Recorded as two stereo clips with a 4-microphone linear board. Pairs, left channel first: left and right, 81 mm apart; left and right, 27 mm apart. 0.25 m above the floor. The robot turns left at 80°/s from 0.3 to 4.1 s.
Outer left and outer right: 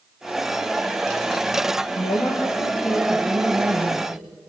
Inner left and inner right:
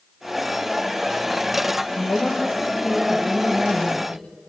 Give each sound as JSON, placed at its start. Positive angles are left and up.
{"t": 1.9, "sound": "a woman speaking", "azimuth_deg": 90, "distance_m": 5.0}